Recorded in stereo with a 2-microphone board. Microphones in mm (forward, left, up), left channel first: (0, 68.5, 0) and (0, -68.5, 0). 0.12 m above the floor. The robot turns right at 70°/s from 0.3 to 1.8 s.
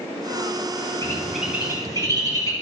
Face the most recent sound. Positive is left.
turn(degrees=-25)  # may be behind; listen again after turning